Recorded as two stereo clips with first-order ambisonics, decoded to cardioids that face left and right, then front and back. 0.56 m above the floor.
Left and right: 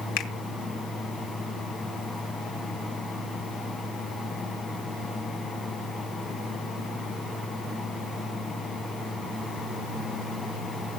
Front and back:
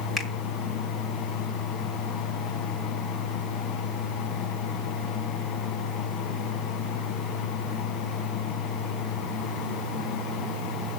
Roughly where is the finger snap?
Left.